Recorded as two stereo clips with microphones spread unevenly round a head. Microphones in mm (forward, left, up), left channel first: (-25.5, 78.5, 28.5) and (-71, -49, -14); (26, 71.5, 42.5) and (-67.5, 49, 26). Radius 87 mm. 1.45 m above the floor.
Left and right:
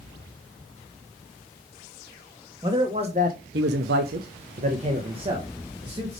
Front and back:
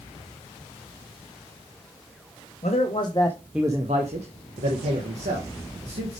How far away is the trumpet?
No trumpet in this recording.